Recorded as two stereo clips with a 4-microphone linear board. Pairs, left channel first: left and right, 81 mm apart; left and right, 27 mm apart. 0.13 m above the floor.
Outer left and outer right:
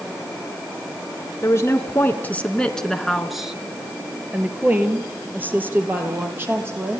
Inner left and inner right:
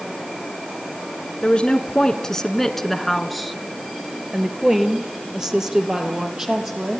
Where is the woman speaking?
35° left (ahead or behind), 1.9 m; by 7.0 s 25° right (ahead or behind), 5.5 m.